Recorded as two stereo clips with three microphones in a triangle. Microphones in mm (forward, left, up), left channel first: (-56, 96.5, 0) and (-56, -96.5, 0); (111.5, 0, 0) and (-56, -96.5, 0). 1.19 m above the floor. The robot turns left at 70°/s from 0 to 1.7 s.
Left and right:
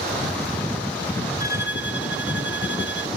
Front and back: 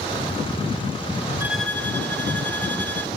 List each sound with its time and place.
1.4 s a violin: 130° left; by 3.1 s 110° left